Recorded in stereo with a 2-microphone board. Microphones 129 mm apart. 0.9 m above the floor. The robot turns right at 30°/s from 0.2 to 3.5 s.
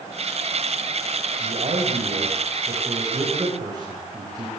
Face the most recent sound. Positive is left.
turn(degrees=-30)